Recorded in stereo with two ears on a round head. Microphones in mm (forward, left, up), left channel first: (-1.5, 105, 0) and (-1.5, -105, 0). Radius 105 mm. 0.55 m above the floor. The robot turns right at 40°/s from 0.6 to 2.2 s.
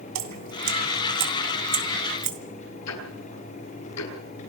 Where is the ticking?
80° left, 8.5 m.